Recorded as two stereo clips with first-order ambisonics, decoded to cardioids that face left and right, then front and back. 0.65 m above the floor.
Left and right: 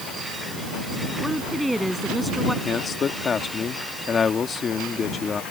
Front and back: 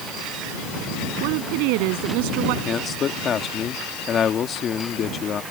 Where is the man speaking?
35° left.